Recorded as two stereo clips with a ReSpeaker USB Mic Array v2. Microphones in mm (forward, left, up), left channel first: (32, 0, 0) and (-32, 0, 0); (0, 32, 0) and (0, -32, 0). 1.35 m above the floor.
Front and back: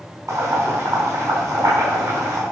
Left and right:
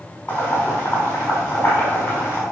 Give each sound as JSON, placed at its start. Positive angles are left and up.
{"t": 0.3, "sound": "boiling", "azimuth_deg": 150, "distance_m": 5.0}